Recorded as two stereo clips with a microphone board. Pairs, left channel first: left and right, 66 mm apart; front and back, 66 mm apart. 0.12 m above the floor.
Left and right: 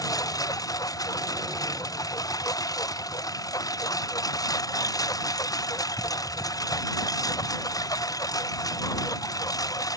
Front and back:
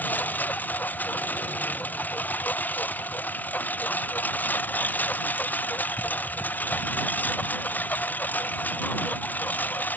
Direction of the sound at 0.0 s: 65° left.